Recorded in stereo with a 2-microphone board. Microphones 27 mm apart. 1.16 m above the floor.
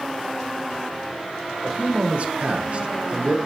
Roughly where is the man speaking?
Right.